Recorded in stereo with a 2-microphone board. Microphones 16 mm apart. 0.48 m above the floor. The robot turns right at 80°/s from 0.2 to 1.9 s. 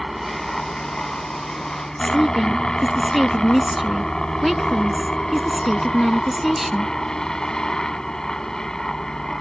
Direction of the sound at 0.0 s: Straight ahead.